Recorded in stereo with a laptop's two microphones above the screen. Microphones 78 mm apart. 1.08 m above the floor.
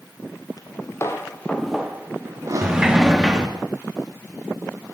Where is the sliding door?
10° right (ahead or behind), 0.9 m.